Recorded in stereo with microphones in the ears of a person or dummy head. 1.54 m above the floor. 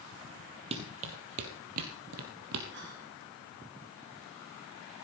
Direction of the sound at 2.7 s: 55° right (ahead or behind).